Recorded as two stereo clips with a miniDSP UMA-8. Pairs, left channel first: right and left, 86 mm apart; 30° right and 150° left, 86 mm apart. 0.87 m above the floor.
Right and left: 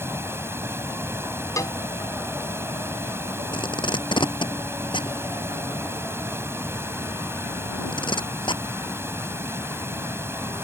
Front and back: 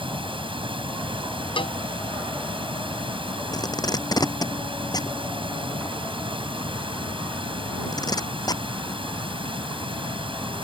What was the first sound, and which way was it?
Running water, 150° left.